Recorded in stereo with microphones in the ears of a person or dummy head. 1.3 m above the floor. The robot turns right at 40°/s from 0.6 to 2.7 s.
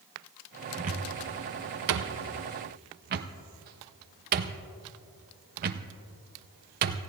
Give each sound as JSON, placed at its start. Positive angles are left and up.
{"t": 0.8, "sound": "a cupboard door", "side_deg": -40, "distance_m": 0.8}